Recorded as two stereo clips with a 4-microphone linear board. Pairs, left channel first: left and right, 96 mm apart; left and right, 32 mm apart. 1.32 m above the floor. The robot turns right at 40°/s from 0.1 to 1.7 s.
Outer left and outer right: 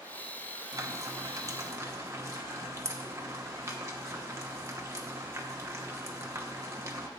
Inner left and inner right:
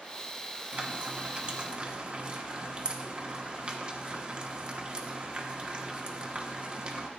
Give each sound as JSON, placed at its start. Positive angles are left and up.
{"t": 0.7, "sound": "frying", "side_deg": -35, "distance_m": 0.9}